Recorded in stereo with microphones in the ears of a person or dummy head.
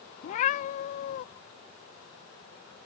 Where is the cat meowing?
40° left (ahead or behind).